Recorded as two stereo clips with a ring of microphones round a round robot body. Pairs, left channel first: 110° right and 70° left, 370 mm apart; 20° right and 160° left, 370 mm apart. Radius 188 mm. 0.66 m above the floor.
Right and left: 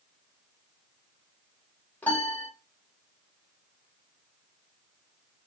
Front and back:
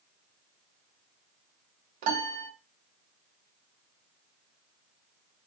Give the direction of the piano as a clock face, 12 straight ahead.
7 o'clock.